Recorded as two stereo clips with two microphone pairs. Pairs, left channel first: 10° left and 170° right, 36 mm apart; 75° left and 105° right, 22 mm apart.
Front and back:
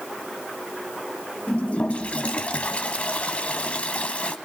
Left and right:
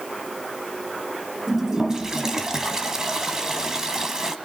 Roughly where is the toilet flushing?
Ahead right.